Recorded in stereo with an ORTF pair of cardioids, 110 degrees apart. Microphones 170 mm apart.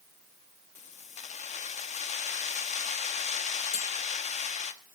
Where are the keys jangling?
45° left, 1.4 m.